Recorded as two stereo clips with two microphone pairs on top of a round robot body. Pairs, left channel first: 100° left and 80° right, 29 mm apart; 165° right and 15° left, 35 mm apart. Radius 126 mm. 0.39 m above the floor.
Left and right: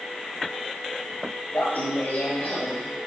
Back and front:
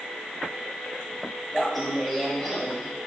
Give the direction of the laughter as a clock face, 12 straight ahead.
9 o'clock.